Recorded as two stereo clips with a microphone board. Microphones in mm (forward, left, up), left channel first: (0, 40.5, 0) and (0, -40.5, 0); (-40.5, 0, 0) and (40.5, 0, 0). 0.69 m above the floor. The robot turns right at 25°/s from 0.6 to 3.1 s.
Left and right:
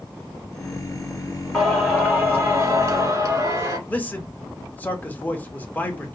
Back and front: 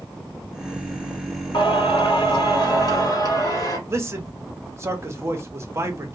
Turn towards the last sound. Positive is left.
turn(degrees=35)